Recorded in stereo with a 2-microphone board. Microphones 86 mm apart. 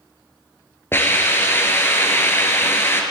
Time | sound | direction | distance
0.9 | a hiss | 30° left (ahead or behind) | 0.9 m